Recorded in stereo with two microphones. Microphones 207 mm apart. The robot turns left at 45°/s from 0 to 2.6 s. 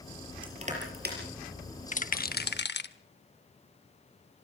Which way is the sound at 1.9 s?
35° left (ahead or behind).